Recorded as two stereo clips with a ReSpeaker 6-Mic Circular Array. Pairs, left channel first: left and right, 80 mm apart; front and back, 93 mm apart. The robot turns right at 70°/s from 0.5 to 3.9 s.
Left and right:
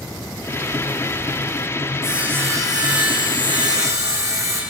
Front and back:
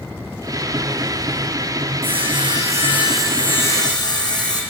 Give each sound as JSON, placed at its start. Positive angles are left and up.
{"t": 2.0, "sound": "sawing", "azimuth_deg": -175, "distance_m": 6.0}